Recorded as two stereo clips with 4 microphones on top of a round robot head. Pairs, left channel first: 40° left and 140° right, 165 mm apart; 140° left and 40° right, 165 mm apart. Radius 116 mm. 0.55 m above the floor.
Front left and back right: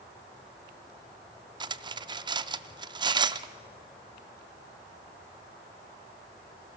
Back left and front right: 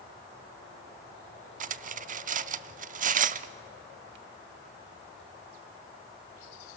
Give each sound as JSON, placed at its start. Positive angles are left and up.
{"t": 1.6, "sound": "cutlery clinking", "azimuth_deg": -75, "distance_m": 0.5}